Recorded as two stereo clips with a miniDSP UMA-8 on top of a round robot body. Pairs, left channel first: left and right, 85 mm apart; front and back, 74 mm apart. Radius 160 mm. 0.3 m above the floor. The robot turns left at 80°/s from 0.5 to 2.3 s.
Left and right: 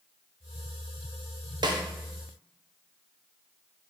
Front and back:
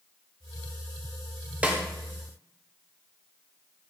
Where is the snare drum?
110° right, 0.7 m; by 1.8 s 125° right, 0.7 m.